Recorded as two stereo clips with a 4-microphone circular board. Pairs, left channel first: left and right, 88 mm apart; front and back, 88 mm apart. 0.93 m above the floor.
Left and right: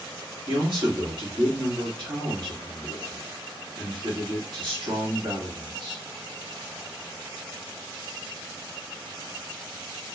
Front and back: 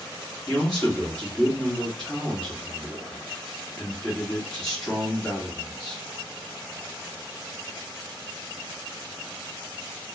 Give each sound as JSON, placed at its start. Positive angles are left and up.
{"t": 0.5, "sound": "a man speaking", "azimuth_deg": -80, "distance_m": 1.5}